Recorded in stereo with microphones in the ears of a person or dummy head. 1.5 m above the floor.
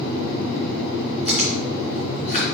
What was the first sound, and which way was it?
Chewing, 35° left (ahead or behind).